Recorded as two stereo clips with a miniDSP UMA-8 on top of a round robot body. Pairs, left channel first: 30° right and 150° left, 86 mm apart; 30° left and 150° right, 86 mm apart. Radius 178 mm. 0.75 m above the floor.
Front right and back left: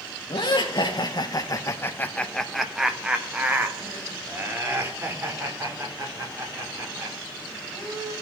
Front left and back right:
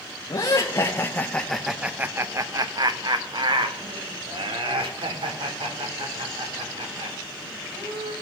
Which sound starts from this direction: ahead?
Laughter, at 0.3 s.